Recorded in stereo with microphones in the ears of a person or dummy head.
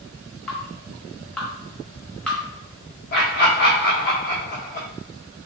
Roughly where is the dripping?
Centre.